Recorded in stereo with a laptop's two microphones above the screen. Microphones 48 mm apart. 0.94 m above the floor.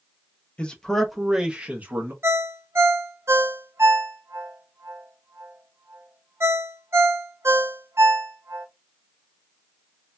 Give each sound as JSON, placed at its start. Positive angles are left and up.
{"t": 0.6, "sound": "a man speaking", "side_deg": 25, "distance_m": 0.7}
{"t": 2.2, "sound": "a ringtone", "side_deg": -60, "distance_m": 0.8}